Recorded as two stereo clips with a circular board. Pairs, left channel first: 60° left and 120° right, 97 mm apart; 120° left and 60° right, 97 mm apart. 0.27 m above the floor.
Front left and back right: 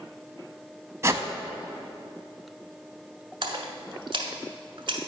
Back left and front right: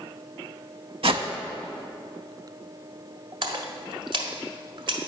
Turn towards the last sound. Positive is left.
turn(degrees=-90)